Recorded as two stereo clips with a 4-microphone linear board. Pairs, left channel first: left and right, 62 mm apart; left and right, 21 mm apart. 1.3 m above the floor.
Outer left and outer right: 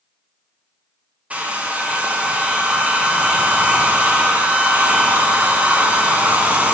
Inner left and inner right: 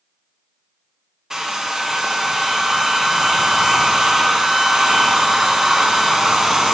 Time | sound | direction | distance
1.3 | a hair dryer | 20° right (ahead or behind) | 0.9 m